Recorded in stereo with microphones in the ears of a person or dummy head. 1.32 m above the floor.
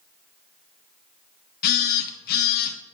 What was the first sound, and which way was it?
A phone buzzing, 55° left (ahead or behind).